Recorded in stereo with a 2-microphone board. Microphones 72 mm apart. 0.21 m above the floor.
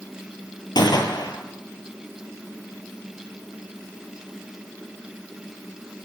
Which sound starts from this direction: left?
A gunshot, at 0.8 s.